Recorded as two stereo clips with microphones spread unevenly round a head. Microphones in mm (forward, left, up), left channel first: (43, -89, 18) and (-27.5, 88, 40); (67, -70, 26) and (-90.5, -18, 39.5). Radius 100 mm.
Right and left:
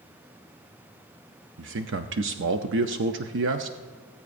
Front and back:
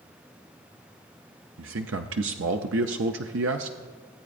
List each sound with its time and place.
1.6 s a man speaking: 145° left, 0.5 m